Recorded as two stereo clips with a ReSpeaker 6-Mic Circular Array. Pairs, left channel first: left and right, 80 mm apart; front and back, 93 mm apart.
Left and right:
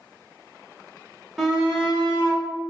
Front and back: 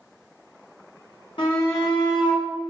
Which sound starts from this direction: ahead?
A shout, at 1.4 s.